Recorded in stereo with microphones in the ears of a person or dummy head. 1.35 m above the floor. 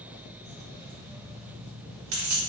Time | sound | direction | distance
0.4 | keys jangling | 65° right (ahead or behind) | 2.0 m